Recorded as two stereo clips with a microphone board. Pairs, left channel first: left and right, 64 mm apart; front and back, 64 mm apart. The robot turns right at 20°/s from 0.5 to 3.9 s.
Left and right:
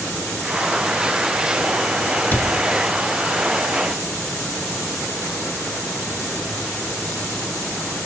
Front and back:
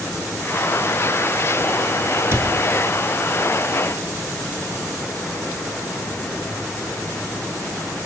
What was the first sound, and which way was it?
A cupboard door, 140° left.